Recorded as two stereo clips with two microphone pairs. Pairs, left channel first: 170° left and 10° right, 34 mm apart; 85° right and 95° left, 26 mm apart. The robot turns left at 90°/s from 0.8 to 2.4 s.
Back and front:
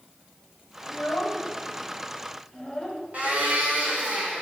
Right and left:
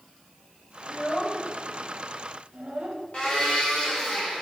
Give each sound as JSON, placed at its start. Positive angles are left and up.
{"t": 0.8, "sound": "a child speaking", "azimuth_deg": -125, "distance_m": 1.5}
{"t": 3.1, "sound": "a blender", "azimuth_deg": -45, "distance_m": 2.0}